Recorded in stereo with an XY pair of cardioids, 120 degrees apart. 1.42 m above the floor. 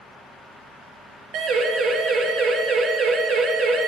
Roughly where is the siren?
Ahead right.